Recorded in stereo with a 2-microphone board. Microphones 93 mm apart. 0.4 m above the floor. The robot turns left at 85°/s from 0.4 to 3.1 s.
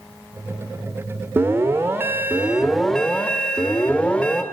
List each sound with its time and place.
1.4 s an alarm: 25° right (ahead or behind), 0.6 m; by 4.4 s 10° left (ahead or behind), 0.6 m